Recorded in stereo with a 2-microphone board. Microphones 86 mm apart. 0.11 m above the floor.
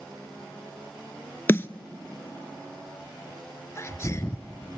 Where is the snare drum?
30° left (ahead or behind), 0.7 m.